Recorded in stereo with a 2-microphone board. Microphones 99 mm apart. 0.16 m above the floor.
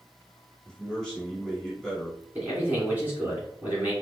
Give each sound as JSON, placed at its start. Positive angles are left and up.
{"t": 0.7, "sound": "a man speaking", "side_deg": 5, "distance_m": 1.6}
{"t": 2.4, "sound": "a man speaking", "side_deg": -15, "distance_m": 1.8}